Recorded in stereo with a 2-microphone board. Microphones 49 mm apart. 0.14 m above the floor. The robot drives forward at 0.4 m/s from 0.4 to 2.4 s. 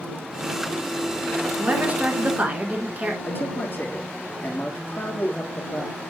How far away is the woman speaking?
About 1.5 m.